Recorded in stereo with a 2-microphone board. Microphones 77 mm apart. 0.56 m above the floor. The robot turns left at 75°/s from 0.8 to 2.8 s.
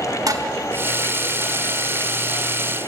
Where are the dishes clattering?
50° right (ahead or behind), 0.8 m.